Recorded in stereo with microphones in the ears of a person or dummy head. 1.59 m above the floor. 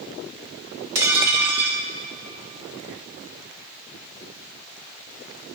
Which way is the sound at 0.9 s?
15° right (ahead or behind).